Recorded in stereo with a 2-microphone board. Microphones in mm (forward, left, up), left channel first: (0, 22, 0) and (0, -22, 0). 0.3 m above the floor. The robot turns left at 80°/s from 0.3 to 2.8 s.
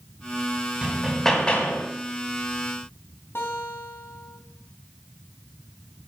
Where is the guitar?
60° left (ahead or behind), 2.5 m.